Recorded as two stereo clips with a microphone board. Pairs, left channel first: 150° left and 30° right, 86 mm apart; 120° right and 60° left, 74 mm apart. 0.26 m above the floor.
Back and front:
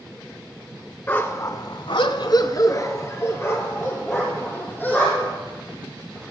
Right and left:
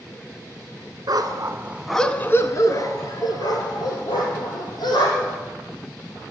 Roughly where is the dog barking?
Left.